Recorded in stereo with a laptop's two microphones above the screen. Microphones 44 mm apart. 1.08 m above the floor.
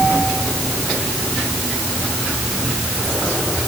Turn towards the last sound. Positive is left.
No sound to turn to.